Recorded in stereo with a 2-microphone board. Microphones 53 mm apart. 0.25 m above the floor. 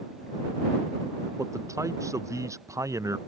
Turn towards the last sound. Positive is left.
turn(degrees=-80)